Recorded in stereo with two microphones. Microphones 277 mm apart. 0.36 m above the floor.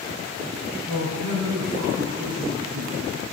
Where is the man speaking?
65° right (ahead or behind), 3 m; by 3.1 s 75° right (ahead or behind), 4.5 m.